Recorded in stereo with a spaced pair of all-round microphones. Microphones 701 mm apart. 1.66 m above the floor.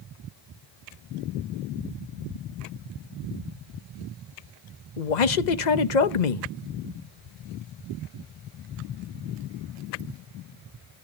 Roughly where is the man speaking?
Left.